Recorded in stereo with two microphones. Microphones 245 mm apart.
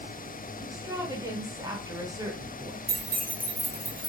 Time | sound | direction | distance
0.6 | a woman speaking | 15° right (ahead or behind) | 0.8 m
2.9 | keys jangling | 35° right (ahead or behind) | 0.8 m